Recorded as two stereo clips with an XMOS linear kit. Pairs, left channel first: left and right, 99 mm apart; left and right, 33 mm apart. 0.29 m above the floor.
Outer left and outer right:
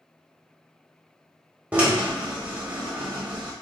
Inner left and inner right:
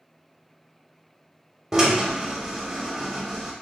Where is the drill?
15° right (ahead or behind), 0.9 m.